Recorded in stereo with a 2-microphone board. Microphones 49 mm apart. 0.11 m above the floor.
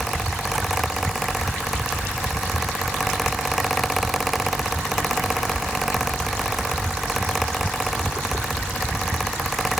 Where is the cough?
No cough in this recording.